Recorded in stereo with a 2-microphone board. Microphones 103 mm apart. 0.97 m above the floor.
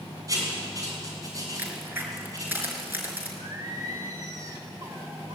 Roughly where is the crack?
Centre.